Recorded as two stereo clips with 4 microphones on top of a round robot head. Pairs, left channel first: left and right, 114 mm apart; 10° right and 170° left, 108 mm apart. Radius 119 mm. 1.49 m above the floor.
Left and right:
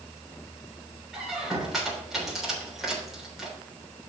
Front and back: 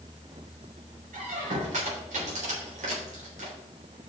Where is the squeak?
175° right, 3.5 m.